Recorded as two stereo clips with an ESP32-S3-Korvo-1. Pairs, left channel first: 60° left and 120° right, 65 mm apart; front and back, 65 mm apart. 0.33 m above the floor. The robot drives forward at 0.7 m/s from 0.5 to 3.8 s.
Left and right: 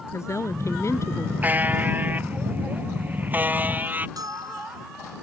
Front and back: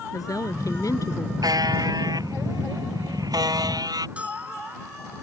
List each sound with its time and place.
0.1 s a woman speaking: 20° left; by 1.3 s 25° left
1.4 s a buzzer: straight behind
4.2 s a bell: 110° right